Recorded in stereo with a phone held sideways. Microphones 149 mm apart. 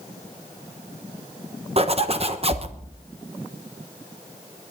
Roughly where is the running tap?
No running tap in this recording.